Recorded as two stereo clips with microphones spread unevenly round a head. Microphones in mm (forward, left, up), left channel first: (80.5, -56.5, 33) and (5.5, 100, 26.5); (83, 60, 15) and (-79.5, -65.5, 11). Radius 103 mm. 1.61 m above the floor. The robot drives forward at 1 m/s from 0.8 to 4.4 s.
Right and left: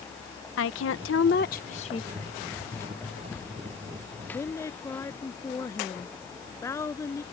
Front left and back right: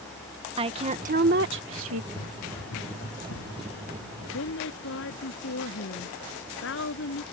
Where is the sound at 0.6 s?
80° right; by 2.0 s 130° right.